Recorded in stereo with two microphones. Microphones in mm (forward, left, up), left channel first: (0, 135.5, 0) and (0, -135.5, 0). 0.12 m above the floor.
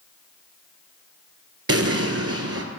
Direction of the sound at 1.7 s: 60° right (ahead or behind).